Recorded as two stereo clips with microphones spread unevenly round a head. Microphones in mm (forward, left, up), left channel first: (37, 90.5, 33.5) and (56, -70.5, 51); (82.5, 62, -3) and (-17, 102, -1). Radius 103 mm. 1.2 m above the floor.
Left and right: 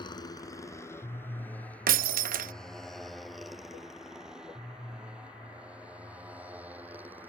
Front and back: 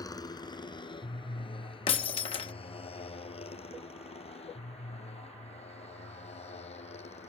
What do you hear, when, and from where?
0.0 s a motorcycle: 35° left; by 7.3 s 5° right
1.9 s breaking glass: 65° right